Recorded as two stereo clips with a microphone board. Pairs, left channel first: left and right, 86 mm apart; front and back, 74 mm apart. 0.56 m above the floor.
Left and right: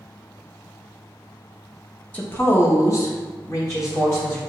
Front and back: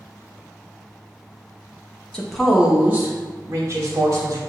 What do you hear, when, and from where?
2.1 s a woman speaking: 60° left, 0.7 m; by 4.4 s 140° left, 1.8 m